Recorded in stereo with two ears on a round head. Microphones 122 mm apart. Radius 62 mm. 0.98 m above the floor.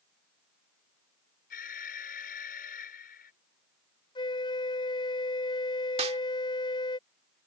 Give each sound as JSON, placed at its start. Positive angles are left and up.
{"t": 1.5, "sound": "an alarm", "side_deg": 70}
{"t": 4.2, "sound": "a flute", "side_deg": 35}
{"t": 6.0, "sound": "a snare drum", "side_deg": -45}